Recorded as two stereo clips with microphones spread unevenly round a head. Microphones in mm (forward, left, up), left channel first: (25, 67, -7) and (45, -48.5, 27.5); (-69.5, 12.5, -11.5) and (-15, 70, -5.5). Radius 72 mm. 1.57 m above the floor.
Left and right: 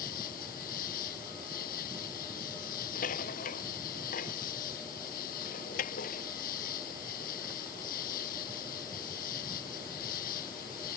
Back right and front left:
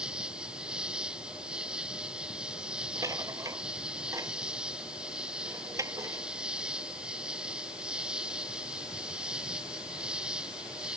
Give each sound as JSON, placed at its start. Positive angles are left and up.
{"t": 0.0, "sound": "an insect", "azimuth_deg": 125}
{"t": 3.0, "sound": "a rattle", "azimuth_deg": 95}